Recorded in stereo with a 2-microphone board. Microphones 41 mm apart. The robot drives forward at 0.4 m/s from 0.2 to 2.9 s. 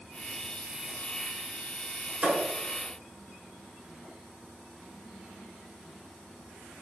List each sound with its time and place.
2.2 s a thud: 40° right (ahead or behind), 1.1 m; by 2.4 s 35° right (ahead or behind), 1.1 m